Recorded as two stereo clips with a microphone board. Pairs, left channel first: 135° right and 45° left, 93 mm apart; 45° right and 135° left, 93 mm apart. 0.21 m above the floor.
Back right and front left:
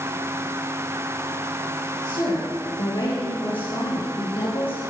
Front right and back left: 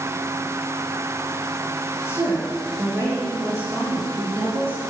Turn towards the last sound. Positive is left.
turn(degrees=-160)